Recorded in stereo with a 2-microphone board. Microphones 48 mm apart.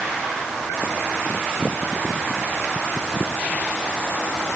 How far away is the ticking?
I don't hear ticking.